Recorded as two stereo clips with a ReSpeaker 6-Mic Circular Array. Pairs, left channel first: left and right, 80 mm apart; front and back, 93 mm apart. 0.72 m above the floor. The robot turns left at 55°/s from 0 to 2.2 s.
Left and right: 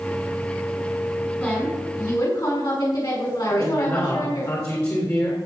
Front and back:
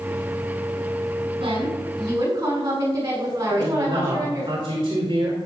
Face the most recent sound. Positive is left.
turn(degrees=140)